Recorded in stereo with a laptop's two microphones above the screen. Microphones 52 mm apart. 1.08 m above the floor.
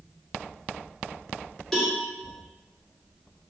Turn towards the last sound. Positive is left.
turn(degrees=10)  # may be behind; listen again after turning